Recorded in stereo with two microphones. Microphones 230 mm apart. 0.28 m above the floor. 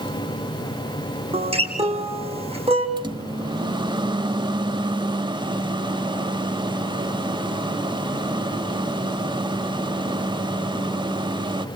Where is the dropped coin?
I don't hear a dropped coin.